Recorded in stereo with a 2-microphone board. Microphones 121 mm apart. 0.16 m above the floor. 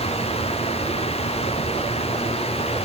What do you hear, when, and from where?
Only background noise.